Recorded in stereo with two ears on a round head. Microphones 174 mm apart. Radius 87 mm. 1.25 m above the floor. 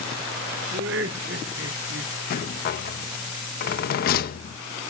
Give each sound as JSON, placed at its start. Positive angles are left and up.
{"t": 0.7, "sound": "laughter", "side_deg": -60, "distance_m": 1.2}
{"t": 2.3, "sound": "a rattle", "side_deg": 50, "distance_m": 0.7}